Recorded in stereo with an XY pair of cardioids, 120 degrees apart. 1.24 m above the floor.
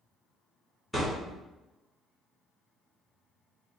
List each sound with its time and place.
0.9 s a thud: 5° right, 1.9 m